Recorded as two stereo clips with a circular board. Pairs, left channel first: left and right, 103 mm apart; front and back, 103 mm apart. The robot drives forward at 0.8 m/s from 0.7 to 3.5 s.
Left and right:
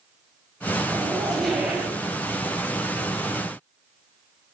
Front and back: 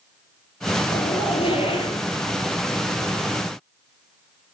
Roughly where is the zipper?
Ahead.